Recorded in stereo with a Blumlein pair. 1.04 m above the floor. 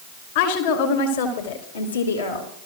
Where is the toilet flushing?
No toilet flushing in this recording.